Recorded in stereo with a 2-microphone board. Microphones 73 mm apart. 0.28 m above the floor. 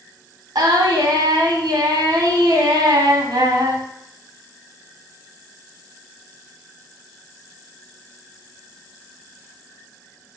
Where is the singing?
70° right (ahead or behind), 0.5 m.